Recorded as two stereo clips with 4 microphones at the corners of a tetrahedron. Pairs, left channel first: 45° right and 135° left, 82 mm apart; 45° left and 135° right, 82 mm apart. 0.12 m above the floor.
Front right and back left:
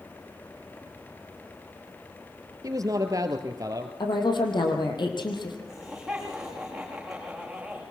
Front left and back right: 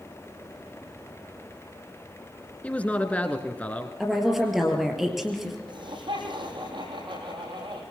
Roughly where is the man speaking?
Left.